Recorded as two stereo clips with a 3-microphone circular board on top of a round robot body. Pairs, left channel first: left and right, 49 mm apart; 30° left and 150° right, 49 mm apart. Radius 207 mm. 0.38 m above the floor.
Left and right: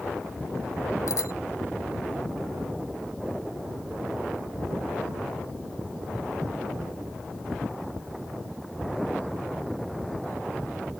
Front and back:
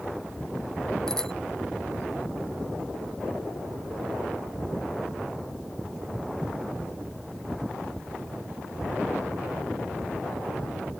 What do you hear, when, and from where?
1.1 s a bicycle bell: 110° left